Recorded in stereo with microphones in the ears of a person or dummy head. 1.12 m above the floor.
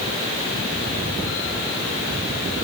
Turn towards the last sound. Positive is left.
No sound to turn to.